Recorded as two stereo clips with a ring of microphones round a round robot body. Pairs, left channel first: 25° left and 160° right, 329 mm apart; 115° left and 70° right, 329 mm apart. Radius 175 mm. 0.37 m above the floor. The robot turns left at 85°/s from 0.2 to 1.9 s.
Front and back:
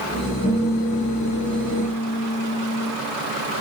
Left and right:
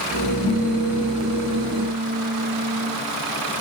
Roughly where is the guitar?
Ahead right.